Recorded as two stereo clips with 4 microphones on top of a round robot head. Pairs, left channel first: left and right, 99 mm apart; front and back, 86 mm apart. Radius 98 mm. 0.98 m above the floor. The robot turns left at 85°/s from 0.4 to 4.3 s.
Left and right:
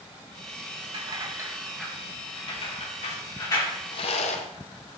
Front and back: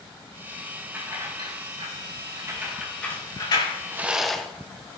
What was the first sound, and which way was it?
Keys jangling, 110° right.